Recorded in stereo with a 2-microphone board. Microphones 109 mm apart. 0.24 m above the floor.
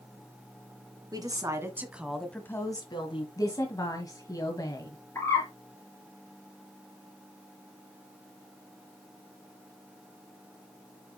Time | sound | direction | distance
1.1 | a woman speaking | 35° right (ahead or behind) | 2 m
3.4 | a woman speaking | 35° left (ahead or behind) | 1.8 m
5.2 | a bird | 25° left (ahead or behind) | 3.5 m